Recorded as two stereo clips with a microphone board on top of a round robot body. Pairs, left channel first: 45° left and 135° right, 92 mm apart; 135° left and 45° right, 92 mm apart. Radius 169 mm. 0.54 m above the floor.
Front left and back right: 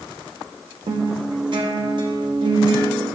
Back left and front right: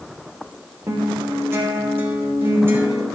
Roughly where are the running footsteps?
No running footsteps in this recording.